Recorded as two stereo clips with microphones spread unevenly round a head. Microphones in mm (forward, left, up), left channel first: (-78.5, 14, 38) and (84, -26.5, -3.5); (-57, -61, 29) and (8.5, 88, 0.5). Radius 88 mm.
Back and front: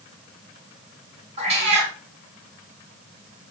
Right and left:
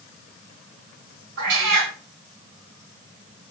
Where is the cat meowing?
45° left, 1.3 m.